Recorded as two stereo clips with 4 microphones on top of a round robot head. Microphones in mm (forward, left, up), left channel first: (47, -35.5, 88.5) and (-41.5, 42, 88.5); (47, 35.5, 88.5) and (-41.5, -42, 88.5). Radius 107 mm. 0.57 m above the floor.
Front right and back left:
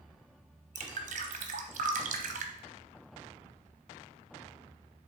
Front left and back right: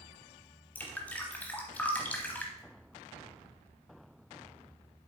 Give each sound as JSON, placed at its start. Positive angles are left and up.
{"t": 0.8, "sound": "dripping", "azimuth_deg": 120, "distance_m": 0.7}